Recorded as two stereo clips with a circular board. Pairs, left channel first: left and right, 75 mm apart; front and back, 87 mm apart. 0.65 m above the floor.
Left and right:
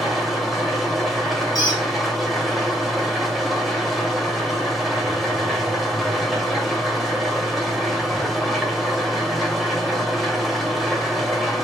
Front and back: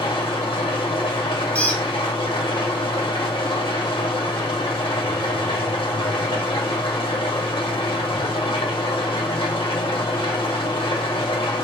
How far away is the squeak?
About 1.4 m.